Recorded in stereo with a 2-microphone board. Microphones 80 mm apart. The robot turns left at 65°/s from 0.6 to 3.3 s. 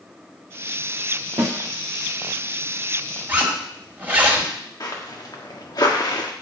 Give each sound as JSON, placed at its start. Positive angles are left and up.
{"t": 1.4, "sound": "a snare drum", "side_deg": -80, "distance_m": 2.5}
{"t": 3.3, "sound": "a zipper", "side_deg": -25, "distance_m": 1.8}
{"t": 4.8, "sound": "footsteps", "side_deg": 45, "distance_m": 2.0}